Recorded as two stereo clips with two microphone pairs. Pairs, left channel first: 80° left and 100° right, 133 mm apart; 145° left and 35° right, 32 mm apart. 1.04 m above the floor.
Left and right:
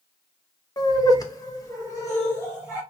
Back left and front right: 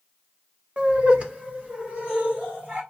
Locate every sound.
0.8 s laughter: 25° left, 0.8 m; by 2.8 s 15° left, 2.5 m